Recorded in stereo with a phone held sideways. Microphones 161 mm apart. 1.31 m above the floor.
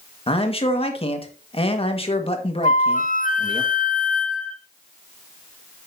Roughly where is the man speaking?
Left.